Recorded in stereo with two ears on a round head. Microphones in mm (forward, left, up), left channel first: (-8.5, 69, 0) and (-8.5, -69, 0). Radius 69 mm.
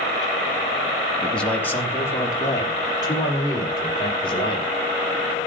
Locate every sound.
1.2 s a man speaking: 5° left (ahead or behind), 1.7 m; by 4.7 s 35° left (ahead or behind), 5 m